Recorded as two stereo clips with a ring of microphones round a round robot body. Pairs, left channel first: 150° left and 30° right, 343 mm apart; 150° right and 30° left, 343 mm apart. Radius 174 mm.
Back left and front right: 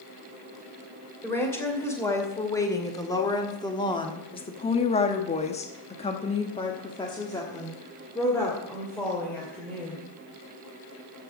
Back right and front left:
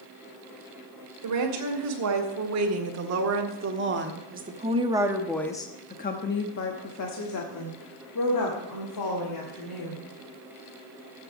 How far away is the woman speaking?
About 3 m.